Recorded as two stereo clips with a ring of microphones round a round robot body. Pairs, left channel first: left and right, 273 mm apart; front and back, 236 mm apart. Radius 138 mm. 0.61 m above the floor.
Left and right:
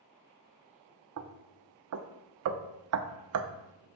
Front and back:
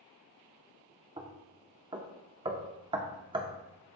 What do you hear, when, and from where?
1.2 s knocking: 110° right, 0.6 m